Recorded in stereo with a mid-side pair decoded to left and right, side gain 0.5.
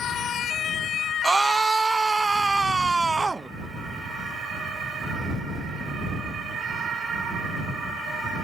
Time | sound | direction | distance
1.2 | a scream | 20° right | ?